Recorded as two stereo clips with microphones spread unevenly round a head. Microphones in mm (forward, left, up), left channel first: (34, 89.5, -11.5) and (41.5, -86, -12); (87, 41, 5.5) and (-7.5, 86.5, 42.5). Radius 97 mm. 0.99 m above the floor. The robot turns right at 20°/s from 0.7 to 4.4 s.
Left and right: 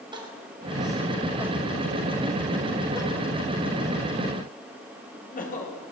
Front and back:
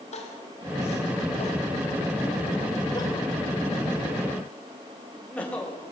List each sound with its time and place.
0.1 s crying: 25° right, 5.5 m; by 5.8 s 50° left, 5.5 m